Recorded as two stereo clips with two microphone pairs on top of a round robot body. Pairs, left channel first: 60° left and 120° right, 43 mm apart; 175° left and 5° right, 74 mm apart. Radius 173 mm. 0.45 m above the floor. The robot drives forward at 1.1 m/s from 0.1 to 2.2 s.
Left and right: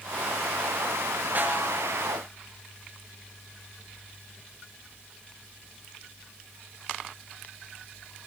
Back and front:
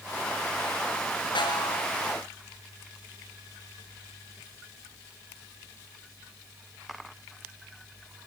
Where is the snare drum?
170° right, 4 m.